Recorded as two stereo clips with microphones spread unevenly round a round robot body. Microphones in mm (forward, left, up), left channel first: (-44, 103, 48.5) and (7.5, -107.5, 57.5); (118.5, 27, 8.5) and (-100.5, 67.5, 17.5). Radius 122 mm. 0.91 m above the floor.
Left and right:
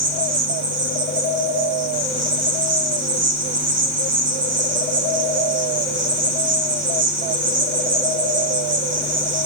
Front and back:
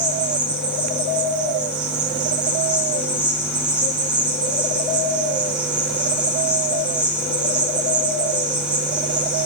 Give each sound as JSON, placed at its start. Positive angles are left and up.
{"t": 0.0, "sound": "an insect", "azimuth_deg": -105, "distance_m": 3.0}